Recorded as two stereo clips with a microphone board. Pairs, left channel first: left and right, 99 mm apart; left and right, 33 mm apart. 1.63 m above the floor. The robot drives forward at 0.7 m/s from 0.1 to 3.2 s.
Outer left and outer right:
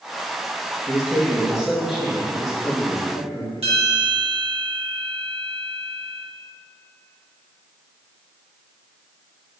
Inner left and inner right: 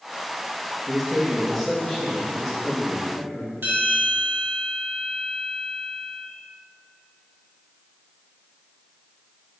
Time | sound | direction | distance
0.9 | a man speaking | 5° right (ahead or behind) | 2 m
3.6 | a bell | 80° right | 2.5 m